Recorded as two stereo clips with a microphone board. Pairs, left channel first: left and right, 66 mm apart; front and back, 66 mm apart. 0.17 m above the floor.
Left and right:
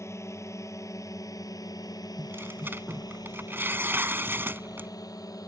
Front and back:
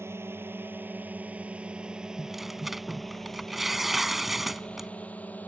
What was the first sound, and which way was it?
A drone, 130° left.